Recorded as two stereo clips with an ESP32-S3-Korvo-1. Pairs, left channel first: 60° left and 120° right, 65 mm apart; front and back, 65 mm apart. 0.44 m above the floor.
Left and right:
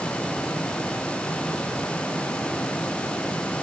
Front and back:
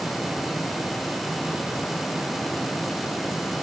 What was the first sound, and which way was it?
Only background noise.